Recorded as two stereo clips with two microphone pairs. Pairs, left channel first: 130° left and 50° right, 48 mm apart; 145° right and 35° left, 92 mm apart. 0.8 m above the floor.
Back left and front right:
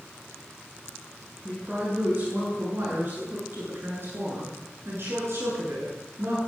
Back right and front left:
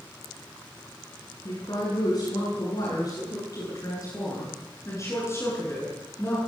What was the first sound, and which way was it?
A woman speaking, 105° right.